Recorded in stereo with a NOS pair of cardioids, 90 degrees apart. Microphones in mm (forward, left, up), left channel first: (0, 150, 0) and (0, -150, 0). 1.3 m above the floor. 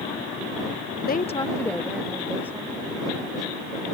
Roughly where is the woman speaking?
Ahead left.